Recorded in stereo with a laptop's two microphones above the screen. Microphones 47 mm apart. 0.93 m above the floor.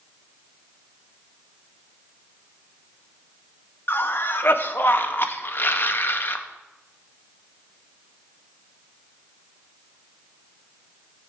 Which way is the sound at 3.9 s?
50° left (ahead or behind).